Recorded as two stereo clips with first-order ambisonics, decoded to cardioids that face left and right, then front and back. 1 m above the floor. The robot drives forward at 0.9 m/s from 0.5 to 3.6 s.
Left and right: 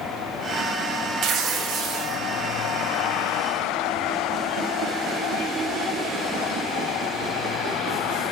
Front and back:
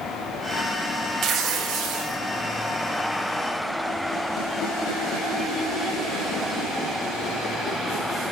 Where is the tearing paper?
135° right, 1.0 m; by 2.2 s 155° right, 1.7 m.